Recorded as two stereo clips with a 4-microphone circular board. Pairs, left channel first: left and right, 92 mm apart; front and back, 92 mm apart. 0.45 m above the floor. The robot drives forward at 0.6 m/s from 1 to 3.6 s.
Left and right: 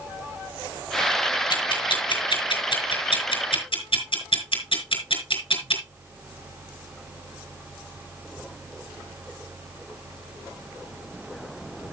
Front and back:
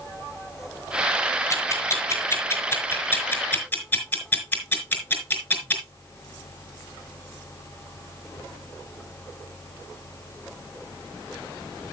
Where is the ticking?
55° left, 5 m; by 5.8 s 70° left, 4.5 m.